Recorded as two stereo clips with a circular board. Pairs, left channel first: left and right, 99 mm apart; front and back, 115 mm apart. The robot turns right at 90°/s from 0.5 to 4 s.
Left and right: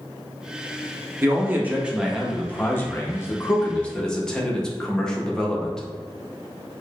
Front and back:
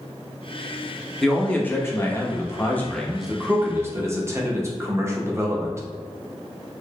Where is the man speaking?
85° right, 0.7 m; by 5.8 s 165° left, 0.7 m.